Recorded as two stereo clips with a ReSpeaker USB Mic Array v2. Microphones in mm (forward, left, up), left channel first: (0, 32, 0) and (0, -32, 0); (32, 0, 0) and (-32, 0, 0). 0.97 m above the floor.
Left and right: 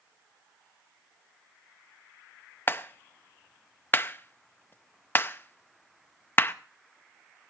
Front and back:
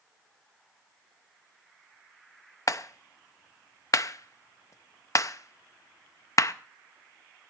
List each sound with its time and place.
2.7 s a clap: 35° left, 0.6 m